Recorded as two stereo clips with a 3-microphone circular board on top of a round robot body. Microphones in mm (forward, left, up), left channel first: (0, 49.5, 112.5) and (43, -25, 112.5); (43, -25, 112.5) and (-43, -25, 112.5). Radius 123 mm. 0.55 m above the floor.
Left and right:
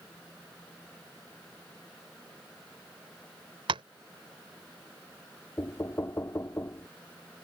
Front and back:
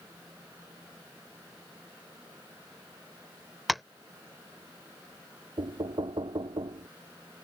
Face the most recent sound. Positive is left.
turn(degrees=180)